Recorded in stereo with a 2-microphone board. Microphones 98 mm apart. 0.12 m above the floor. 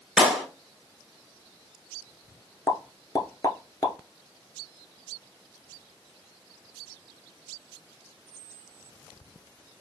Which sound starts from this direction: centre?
A clap, at 0.2 s.